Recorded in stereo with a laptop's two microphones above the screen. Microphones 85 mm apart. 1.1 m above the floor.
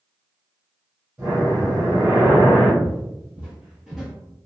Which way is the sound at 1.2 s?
15° right (ahead or behind).